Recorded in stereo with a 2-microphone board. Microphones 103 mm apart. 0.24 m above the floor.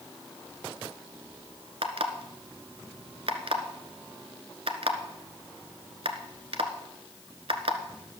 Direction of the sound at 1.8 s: 70° right (ahead or behind).